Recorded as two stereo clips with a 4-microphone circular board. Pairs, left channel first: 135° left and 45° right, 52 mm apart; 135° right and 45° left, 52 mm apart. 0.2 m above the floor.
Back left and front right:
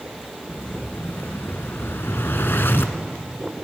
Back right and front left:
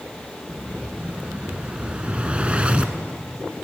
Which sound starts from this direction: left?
An explosion, at 0.5 s.